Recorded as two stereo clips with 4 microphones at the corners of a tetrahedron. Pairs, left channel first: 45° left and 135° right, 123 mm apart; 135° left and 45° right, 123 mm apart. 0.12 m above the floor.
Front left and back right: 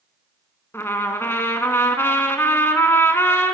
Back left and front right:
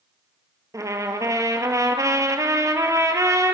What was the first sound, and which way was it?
A trumpet, 10° right.